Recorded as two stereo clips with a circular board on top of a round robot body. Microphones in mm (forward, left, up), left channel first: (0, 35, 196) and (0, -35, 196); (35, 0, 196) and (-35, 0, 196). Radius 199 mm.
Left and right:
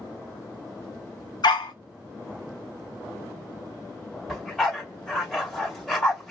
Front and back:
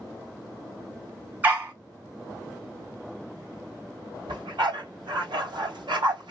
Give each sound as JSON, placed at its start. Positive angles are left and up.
{"t": 1.4, "sound": "a dog barking", "azimuth_deg": 110, "distance_m": 1.5}
{"t": 4.3, "sound": "a dog barking", "azimuth_deg": 175, "distance_m": 1.4}